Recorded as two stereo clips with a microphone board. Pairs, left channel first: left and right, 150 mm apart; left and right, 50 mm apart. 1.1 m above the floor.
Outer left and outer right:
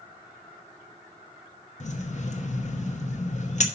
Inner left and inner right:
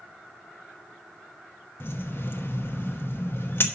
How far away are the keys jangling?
About 0.9 m.